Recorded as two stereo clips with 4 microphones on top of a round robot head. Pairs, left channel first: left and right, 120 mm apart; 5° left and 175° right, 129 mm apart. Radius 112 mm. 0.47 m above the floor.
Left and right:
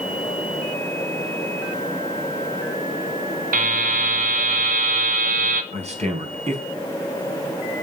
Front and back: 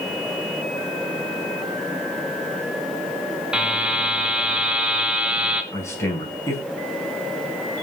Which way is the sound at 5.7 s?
65° right.